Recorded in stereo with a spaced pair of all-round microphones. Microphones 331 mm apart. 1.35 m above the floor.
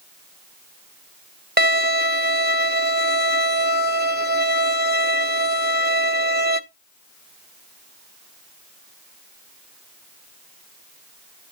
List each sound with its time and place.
1.6 s a violin: 30° right (ahead or behind), 0.7 m